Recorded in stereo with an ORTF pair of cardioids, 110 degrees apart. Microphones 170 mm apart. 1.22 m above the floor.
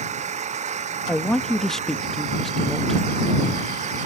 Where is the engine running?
45° right.